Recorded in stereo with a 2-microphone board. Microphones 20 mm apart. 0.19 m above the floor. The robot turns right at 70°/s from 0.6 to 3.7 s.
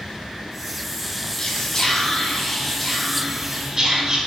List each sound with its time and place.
1.4 s whispering: 65° left, 1.3 m; by 4.2 s 135° right, 1.3 m